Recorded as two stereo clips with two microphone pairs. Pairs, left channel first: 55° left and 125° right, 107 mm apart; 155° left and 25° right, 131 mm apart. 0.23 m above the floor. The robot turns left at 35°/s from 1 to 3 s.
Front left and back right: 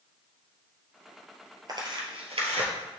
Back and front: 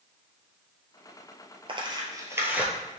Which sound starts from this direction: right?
Tearing paper, at 1.7 s.